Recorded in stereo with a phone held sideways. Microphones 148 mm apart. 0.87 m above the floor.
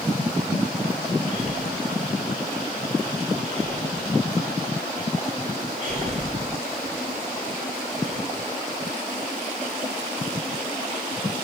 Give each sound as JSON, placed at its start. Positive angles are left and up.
{"t": 1.3, "sound": "breathing", "side_deg": -55, "distance_m": 3.0}